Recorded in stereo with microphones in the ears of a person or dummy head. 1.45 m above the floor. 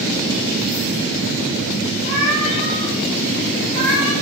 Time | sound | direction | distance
2.0 | a cat meowing | 55° right (ahead or behind) | 2.5 m